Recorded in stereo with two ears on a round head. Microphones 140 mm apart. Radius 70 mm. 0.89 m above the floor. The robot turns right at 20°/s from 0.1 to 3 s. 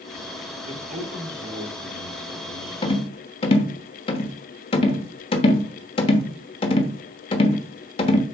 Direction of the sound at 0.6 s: 140° right.